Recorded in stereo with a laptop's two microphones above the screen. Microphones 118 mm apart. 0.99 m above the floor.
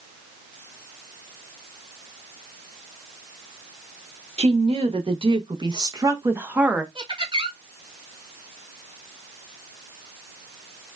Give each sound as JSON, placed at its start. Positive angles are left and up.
{"t": 4.4, "sound": "a woman speaking", "side_deg": -55, "distance_m": 1.8}
{"t": 7.0, "sound": "laughter", "side_deg": -45, "distance_m": 2.5}